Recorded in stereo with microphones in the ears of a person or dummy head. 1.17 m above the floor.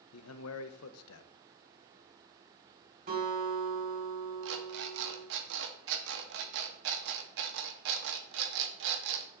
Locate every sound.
0.1 s a man speaking: 80° left, 0.7 m
3.1 s a guitar: 50° right (ahead or behind), 3.5 m
4.4 s an alarm clock: 65° right (ahead or behind), 0.9 m